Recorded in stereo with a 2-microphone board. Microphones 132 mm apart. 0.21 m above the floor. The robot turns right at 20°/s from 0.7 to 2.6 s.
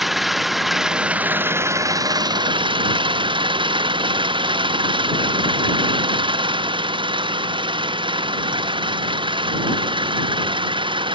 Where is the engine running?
Straight behind; by 11.2 s 140° right.